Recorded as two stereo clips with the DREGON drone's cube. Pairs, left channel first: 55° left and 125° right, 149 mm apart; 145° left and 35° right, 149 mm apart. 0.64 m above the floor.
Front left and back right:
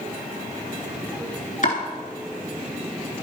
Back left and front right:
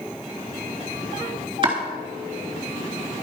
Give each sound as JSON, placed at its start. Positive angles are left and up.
{"t": 1.6, "sound": "chopping", "azimuth_deg": 20, "distance_m": 3.0}